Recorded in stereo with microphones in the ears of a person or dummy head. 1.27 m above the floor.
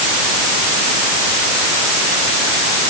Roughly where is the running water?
I don't hear running water.